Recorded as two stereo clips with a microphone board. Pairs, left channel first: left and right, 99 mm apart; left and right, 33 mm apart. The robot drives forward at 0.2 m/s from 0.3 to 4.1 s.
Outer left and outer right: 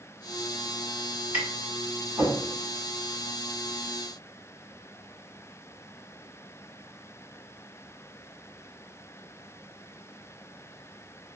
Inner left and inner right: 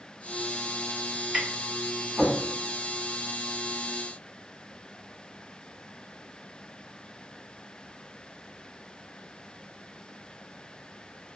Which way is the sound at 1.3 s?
20° right (ahead or behind).